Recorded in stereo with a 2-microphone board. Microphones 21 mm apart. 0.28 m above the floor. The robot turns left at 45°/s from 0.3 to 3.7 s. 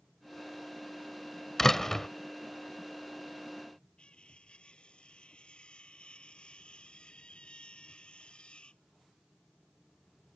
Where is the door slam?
20° left (ahead or behind).